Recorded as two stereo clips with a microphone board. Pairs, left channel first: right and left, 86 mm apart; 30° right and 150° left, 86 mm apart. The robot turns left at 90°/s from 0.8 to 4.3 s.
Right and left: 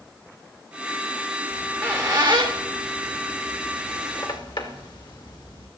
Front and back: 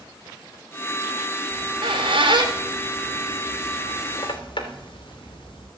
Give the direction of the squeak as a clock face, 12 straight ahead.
6 o'clock.